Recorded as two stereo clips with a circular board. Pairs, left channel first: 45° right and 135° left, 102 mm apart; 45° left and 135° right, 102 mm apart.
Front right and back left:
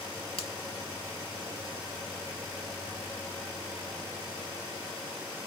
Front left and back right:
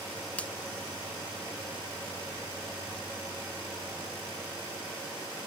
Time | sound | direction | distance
0.4 | a finger snap | 30° right | ?